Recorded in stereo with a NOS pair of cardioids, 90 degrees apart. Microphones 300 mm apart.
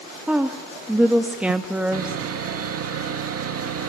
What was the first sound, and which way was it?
A woman speaking, 5° right.